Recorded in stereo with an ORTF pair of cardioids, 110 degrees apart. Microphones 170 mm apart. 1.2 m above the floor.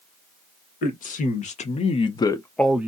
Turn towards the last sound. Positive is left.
turn(degrees=-10)